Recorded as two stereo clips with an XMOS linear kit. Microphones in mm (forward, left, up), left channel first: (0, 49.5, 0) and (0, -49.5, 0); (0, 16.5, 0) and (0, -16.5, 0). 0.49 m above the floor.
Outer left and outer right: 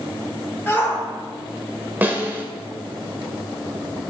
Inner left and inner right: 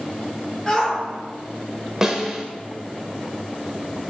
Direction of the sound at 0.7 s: 20° left (ahead or behind).